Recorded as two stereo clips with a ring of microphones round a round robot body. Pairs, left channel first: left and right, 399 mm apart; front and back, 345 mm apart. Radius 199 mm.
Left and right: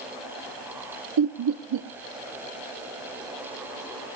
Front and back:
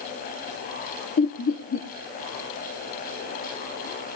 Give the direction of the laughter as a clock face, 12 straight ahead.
2 o'clock.